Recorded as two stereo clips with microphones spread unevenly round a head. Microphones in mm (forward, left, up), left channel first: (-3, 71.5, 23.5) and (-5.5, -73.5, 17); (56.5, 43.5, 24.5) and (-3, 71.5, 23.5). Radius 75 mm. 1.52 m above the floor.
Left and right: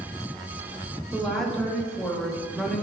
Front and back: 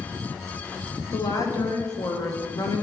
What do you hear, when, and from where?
1.1 s a woman speaking: 5° left, 1.1 m